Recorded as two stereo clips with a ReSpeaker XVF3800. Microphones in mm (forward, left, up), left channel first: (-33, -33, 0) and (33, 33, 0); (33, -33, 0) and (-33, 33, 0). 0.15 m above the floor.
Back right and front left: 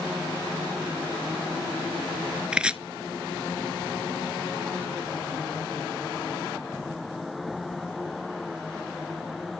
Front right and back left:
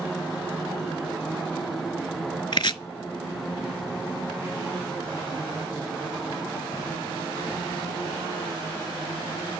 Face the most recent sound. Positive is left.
turn(degrees=-30)